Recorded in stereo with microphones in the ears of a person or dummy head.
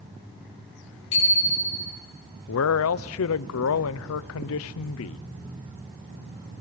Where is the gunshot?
No gunshot in this recording.